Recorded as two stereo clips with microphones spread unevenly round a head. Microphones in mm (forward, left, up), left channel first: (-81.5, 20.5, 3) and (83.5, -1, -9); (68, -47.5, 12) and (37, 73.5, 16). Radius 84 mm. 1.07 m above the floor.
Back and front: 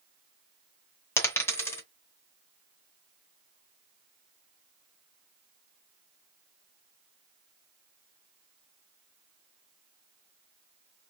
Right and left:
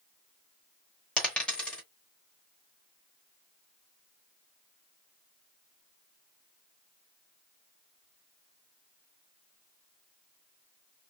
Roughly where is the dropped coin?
Behind right.